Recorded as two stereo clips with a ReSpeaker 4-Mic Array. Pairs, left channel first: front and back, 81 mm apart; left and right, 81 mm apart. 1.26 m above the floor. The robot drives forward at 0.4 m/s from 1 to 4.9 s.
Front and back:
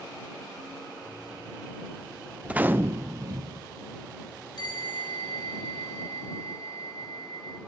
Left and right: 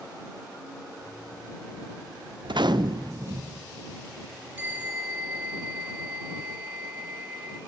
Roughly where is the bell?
Ahead.